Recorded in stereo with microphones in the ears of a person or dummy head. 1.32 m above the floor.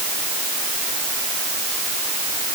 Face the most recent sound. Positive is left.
No sound to turn to.